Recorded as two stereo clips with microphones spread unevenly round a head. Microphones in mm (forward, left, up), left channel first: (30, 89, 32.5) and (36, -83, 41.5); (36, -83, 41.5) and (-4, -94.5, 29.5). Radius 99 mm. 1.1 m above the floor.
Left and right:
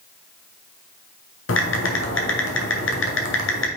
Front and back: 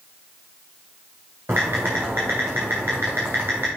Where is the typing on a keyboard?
115° left, 1.2 m.